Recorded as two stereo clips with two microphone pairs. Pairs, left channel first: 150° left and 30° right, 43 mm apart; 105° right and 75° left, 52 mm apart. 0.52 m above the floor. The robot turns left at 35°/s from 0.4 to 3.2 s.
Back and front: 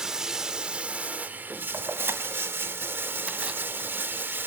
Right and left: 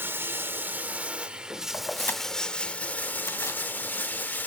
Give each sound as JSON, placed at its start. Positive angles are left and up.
{"t": 0.0, "sound": "running water", "azimuth_deg": 40, "distance_m": 0.9}
{"t": 1.7, "sound": "keys jangling", "azimuth_deg": -45, "distance_m": 2.5}